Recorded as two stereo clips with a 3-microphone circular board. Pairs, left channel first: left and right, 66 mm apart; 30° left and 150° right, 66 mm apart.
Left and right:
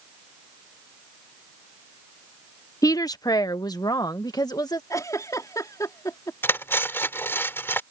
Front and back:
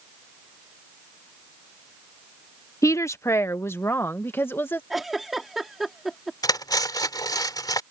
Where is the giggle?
125° left.